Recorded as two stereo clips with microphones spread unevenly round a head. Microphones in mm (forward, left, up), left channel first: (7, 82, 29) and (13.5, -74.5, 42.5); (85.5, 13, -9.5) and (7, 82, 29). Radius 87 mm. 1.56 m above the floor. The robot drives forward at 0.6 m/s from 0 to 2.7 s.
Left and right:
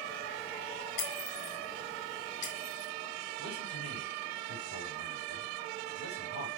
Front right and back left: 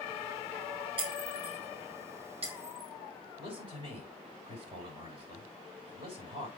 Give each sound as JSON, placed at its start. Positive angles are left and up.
{"t": 1.0, "sound": "breaking glass", "azimuth_deg": 125, "distance_m": 2.0}
{"t": 3.4, "sound": "a man speaking", "azimuth_deg": 105, "distance_m": 6.0}